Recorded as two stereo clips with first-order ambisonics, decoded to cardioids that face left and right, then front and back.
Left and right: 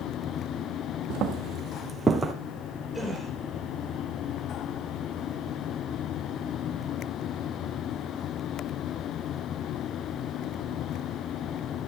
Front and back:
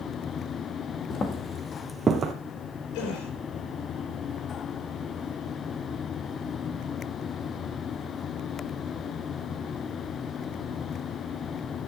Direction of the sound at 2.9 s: 5° left.